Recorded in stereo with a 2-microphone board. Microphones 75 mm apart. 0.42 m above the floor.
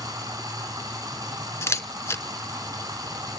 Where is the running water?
55° right (ahead or behind), 3.5 m.